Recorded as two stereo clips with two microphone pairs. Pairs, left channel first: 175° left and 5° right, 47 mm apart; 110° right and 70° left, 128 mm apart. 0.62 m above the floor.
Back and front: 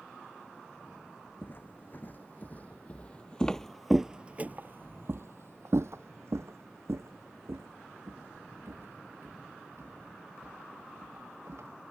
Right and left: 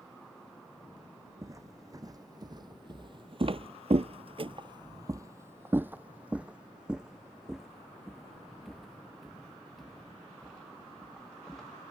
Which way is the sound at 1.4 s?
130° left.